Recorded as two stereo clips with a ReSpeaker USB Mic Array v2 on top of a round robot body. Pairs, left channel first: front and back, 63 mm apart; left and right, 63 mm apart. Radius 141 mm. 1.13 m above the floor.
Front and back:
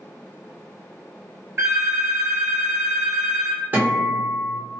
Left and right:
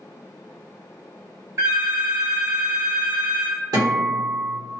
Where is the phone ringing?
125° right, 1.2 m.